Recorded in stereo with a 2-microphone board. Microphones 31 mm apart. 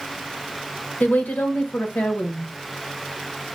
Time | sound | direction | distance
1.0 | a woman speaking | 80° left | 0.9 m